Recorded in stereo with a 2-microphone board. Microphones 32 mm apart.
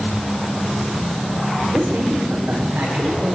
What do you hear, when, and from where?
1.7 s a man speaking: 75° right (ahead or behind), 9 m